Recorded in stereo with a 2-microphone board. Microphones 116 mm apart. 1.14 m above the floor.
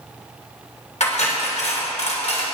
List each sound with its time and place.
1.0 s cutlery clinking: 75° left (ahead or behind), 2.5 m